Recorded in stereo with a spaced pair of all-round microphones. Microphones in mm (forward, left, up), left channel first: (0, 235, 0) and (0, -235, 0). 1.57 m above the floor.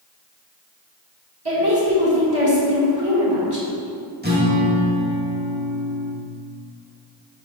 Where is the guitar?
20° right (ahead or behind), 1.2 m.